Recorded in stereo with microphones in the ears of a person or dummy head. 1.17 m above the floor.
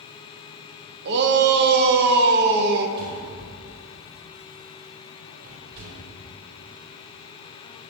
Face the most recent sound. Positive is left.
turn(degrees=-60)  # may be behind; listen again after turning